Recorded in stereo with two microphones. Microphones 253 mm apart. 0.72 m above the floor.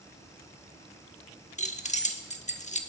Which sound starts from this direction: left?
Keys jangling, at 1.6 s.